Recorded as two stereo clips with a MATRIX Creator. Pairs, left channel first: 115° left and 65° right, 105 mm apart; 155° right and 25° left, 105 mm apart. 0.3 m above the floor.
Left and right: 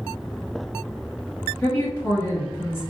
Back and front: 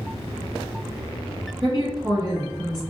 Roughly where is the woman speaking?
Ahead left.